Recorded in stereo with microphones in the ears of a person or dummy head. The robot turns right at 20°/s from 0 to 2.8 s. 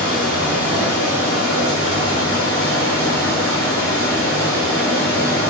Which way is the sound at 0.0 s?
95° left.